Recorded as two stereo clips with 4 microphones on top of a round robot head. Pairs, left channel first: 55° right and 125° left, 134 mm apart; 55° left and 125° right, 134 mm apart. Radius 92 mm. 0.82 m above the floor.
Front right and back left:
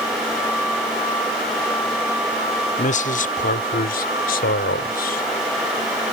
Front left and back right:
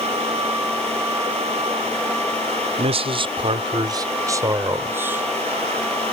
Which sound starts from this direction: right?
A man speaking, at 2.8 s.